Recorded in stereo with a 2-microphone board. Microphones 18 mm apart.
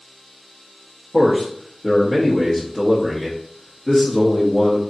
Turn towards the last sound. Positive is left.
turn(degrees=40)  # may be behind; listen again after turning